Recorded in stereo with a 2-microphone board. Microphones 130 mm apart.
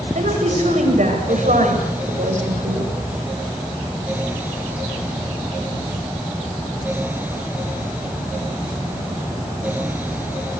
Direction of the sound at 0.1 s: 75° right (ahead or behind).